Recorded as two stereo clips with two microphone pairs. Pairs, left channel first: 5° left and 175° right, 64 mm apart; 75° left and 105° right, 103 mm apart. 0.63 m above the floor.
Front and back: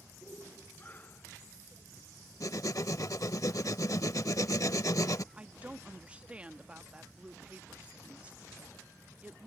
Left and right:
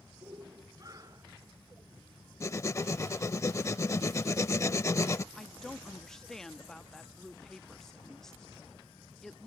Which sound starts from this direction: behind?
A woman speaking, at 5.3 s.